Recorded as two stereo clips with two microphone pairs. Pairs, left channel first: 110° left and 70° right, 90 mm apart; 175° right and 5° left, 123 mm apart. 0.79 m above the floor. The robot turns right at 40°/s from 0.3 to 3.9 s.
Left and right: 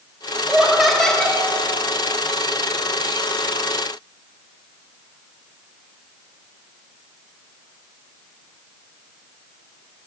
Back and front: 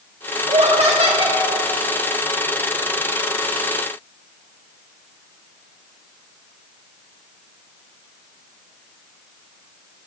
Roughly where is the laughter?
Ahead.